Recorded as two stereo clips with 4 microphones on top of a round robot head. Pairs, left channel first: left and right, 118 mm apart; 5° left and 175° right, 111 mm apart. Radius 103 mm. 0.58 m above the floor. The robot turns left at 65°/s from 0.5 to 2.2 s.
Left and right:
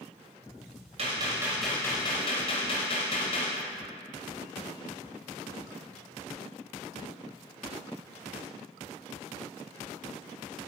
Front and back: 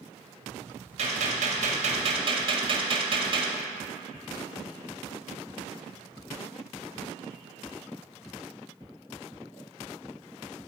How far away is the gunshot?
About 1.2 m.